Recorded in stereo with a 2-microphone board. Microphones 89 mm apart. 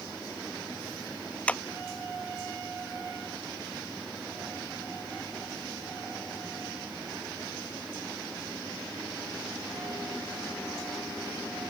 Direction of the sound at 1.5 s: 15° left (ahead or behind).